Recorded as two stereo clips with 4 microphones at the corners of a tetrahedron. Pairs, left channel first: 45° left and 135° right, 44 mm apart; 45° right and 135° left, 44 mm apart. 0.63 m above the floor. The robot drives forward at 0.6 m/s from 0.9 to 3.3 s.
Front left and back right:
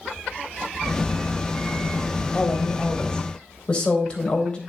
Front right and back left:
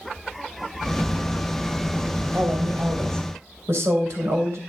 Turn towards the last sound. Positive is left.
turn(degrees=115)